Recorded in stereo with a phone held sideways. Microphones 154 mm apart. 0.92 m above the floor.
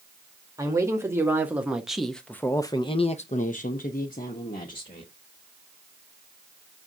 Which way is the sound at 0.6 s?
20° right (ahead or behind).